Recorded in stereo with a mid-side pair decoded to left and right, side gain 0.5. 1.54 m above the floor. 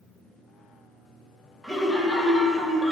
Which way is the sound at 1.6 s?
5° left.